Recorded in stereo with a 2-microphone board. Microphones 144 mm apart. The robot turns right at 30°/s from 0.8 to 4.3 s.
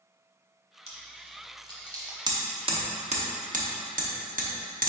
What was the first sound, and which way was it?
Chewing, 45° right (ahead or behind).